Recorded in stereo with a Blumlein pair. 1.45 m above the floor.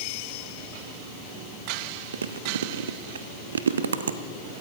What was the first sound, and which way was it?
Chewing, 65° right.